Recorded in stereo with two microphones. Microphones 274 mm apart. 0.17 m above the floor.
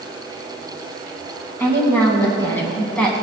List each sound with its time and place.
1.6 s a woman speaking: 10° left (ahead or behind), 1.4 m; by 3.1 s 5° left (ahead or behind), 1.3 m